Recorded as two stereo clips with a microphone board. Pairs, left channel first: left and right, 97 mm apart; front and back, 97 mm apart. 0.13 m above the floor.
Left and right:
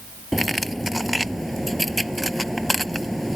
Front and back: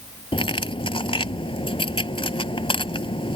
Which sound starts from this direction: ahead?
Cutlery clinking, at 0.3 s.